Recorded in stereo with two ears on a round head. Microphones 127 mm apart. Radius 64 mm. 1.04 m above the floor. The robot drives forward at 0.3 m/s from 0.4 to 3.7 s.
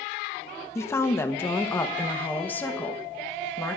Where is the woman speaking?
20° left (ahead or behind), 0.9 m; by 3.8 s 10° left (ahead or behind), 1.6 m.